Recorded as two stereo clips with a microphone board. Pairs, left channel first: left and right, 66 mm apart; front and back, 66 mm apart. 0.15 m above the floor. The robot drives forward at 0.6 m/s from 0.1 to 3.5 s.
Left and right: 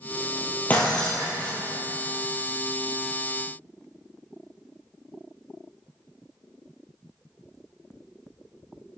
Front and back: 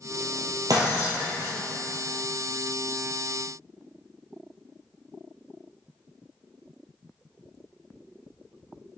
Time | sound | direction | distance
0.7 | breaking glass | 155° left | 2 m